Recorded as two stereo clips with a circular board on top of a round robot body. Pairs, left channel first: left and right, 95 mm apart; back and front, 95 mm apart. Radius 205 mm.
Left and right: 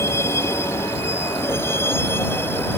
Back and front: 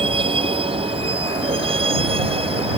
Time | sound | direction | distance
0.0 | a vehicle | 25° left | ?